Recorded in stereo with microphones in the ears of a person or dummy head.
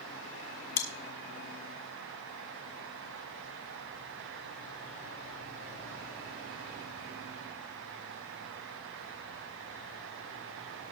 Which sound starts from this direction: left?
Chewing, at 0.8 s.